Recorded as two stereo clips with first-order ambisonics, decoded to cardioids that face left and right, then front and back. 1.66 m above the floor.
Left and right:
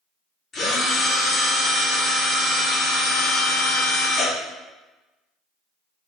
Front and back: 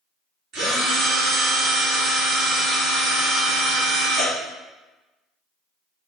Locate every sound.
0.5 s a drill: 150° left, 1.5 m